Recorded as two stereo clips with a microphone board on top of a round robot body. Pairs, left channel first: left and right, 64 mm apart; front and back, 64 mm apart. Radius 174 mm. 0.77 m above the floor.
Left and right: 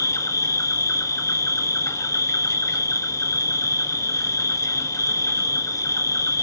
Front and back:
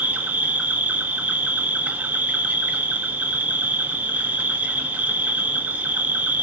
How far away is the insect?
About 1.6 m.